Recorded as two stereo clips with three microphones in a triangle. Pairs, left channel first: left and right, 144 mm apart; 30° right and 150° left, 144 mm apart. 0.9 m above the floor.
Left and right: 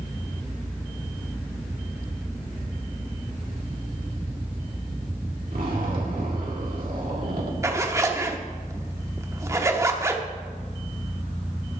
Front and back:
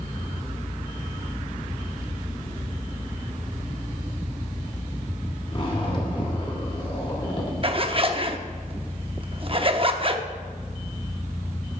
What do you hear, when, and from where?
5.5 s a zipper: 80° right, 2 m
7.6 s a zipper: 160° right, 0.8 m